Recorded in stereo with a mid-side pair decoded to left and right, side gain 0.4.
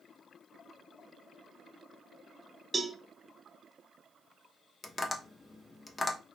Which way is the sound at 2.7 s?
30° right.